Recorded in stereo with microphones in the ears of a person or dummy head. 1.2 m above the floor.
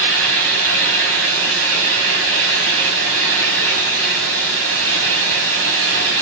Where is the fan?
70° right (ahead or behind), 4 m.